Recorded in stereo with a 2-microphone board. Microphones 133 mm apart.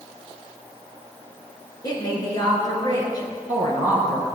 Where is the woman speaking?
30° left (ahead or behind), 3 m.